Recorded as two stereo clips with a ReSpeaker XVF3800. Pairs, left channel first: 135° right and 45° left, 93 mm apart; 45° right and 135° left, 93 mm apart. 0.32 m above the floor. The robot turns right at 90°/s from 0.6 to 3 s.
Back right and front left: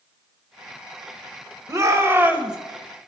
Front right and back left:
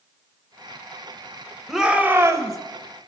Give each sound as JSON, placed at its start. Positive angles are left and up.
{"t": 1.7, "sound": "a shout", "azimuth_deg": 50, "distance_m": 1.0}